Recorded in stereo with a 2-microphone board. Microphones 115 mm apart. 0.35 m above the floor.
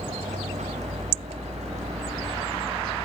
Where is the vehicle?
85° right; by 3.0 s 70° right (ahead or behind).